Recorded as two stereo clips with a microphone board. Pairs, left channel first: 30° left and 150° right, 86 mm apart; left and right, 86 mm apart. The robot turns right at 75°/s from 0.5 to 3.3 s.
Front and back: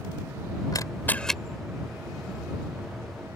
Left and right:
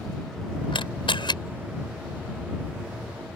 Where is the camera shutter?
70° left; by 1.4 s 120° left.